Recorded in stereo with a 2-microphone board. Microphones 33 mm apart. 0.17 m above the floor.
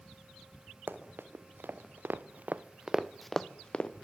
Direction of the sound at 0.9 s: 90° right.